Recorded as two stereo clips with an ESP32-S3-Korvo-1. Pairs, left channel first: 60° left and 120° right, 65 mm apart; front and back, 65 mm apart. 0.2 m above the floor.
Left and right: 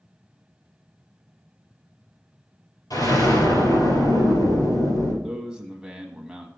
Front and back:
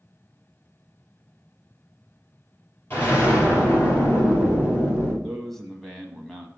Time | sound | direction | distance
2.9 | an explosion | 50° left | 2.5 m
5.2 | a man speaking | 75° right | 1.0 m